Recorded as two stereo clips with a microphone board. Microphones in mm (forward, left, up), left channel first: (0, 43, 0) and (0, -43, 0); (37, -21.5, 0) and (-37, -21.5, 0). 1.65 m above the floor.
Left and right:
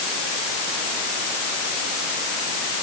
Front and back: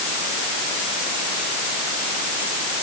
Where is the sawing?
I don't hear sawing.